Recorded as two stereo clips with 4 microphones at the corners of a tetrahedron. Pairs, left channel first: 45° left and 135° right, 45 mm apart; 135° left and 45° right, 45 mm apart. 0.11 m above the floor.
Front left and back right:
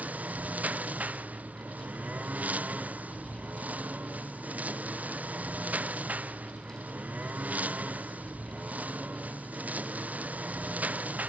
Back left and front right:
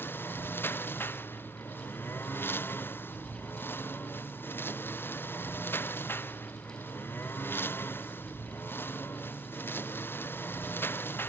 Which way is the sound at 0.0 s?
170° left.